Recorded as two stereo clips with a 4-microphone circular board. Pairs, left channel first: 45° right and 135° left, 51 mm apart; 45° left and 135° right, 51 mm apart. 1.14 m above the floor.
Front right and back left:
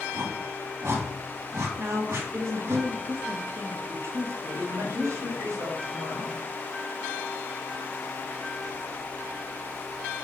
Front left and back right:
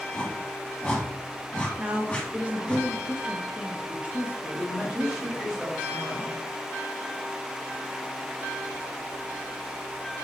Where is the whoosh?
115° left, 1.9 m.